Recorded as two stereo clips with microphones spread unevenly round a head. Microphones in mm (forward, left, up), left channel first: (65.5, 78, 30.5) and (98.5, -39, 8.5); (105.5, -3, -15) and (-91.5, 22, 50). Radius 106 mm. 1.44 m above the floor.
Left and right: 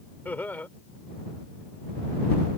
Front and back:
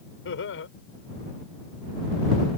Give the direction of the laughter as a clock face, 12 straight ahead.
11 o'clock.